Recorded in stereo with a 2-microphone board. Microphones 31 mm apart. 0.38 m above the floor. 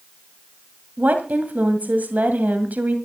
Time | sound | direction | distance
1.0 | a woman speaking | 60° right (ahead or behind) | 2 m